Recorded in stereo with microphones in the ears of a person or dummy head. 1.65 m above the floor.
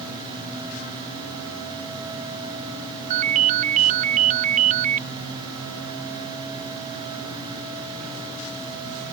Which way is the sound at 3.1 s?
35° right (ahead or behind).